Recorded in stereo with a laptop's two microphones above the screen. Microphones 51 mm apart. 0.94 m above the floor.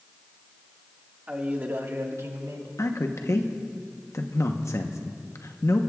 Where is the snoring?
No snoring in this recording.